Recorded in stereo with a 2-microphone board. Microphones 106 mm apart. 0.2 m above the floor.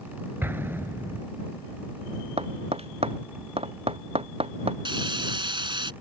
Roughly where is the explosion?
Right.